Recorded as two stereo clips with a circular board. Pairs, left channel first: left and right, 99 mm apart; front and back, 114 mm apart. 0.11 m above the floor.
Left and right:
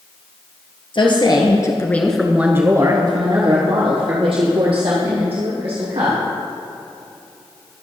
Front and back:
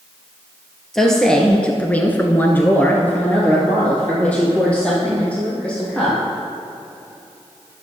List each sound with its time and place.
0.9 s a woman speaking: 85° left, 1.9 m; by 6.2 s 80° right, 5 m